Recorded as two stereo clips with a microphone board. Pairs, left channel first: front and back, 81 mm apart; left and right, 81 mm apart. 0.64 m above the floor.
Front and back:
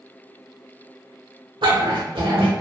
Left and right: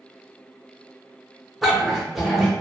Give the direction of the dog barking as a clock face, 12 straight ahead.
6 o'clock.